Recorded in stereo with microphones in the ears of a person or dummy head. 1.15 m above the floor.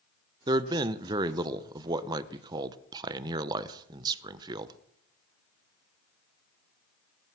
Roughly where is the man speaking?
Right.